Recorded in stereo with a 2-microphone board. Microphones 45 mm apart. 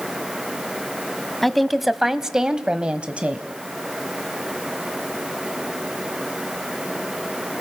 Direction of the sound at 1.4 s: 5° left (ahead or behind).